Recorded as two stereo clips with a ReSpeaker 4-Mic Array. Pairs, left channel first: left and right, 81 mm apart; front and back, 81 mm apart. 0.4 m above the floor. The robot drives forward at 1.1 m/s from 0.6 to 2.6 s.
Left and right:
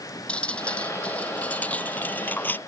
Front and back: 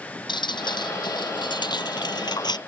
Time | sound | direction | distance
0.3 | dripping | 15° left | ?